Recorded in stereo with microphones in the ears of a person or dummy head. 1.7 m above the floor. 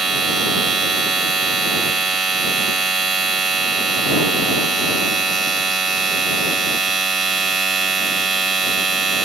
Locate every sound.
0.0 s a machine running: 5° left (ahead or behind)